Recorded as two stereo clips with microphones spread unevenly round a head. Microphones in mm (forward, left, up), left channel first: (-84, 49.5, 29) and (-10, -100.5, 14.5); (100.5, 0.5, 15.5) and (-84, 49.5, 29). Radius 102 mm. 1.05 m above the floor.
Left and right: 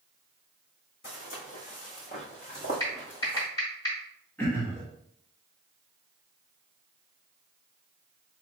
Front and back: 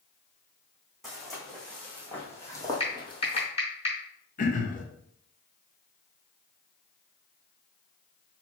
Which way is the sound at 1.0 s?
80° left.